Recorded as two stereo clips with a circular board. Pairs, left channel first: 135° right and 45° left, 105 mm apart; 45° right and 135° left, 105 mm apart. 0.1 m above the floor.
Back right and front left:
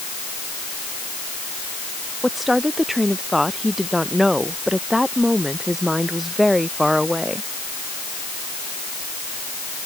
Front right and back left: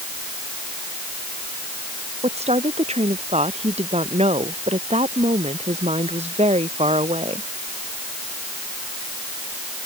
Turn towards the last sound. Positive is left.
turn(degrees=135)